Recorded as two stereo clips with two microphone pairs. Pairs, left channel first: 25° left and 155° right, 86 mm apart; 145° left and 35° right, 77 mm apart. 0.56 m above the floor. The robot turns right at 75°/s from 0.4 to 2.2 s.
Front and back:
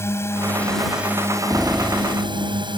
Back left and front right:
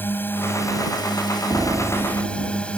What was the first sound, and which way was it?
A drone, 85° left.